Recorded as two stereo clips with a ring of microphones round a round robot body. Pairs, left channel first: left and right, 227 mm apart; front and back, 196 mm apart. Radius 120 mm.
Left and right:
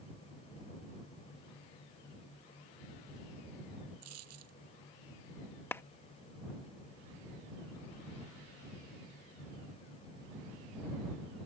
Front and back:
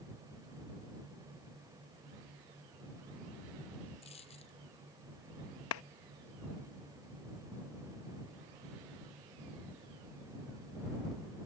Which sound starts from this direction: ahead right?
A dropped coin, at 4.0 s.